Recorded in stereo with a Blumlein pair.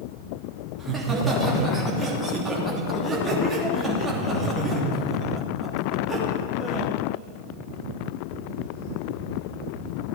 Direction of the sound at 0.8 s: 10° right.